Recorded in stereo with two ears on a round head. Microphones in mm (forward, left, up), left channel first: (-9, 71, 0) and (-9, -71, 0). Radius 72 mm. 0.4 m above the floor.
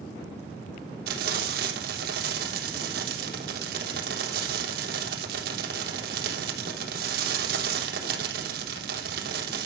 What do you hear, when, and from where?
1.1 s frying: 60° right (ahead or behind), 3.5 m